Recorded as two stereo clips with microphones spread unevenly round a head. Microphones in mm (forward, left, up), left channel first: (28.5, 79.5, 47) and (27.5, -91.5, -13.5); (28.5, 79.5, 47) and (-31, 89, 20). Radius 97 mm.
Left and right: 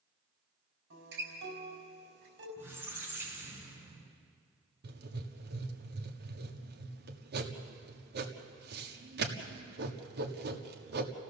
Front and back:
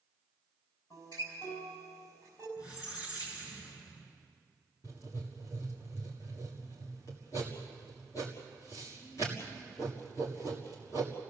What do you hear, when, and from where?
0.9 s a guitar: 75° right, 5 m
2.6 s a squeak: 10° right, 4.5 m
4.8 s writing: 75° right, 1.6 m